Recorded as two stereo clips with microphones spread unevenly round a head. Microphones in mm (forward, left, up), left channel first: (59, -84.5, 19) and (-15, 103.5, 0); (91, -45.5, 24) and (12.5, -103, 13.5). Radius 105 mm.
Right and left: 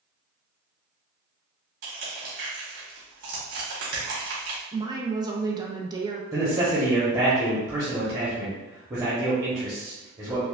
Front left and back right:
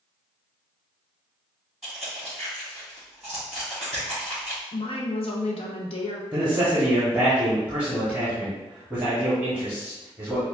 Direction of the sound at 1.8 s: 125° left.